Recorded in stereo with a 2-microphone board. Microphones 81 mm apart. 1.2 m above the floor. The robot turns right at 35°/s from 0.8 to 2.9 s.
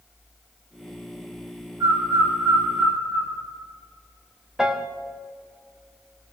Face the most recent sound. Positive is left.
turn(degrees=-5)  # may be behind; listen again after turning